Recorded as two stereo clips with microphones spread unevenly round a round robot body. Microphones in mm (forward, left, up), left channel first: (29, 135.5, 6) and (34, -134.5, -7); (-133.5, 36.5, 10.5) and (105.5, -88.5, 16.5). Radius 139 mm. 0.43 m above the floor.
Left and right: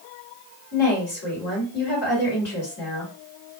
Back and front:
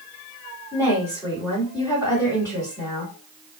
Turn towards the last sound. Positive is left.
turn(degrees=80)